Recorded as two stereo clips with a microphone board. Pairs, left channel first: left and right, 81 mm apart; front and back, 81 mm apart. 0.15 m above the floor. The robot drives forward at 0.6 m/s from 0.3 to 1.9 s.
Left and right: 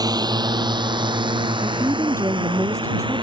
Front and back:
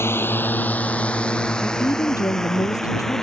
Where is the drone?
55° right; by 3.2 s 85° right.